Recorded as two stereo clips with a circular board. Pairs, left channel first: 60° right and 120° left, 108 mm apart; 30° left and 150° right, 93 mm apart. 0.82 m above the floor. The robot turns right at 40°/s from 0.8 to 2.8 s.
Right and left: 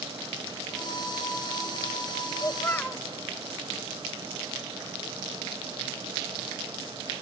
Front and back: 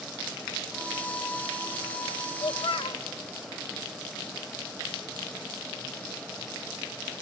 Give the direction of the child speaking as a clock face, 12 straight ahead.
12 o'clock.